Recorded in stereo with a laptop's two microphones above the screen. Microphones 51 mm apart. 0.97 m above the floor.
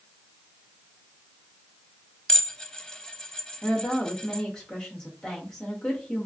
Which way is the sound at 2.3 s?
15° left (ahead or behind).